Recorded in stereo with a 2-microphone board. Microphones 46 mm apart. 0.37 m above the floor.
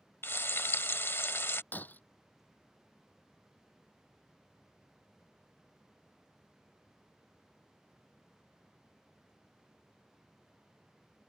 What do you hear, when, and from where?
0.2 s frying: 55° left (ahead or behind)
1.7 s breaking glass: 40° left (ahead or behind)